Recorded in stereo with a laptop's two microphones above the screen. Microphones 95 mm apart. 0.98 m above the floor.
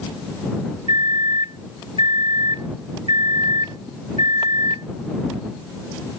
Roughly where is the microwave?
Right.